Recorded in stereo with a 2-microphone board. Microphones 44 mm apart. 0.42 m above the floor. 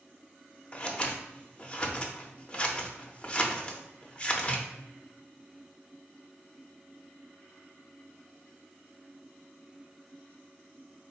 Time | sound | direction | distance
0.7 | scissors | 25° left (ahead or behind) | 0.5 m